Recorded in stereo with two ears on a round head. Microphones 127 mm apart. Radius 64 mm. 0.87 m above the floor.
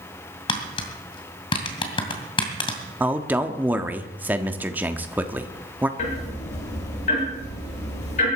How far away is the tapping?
About 2 m.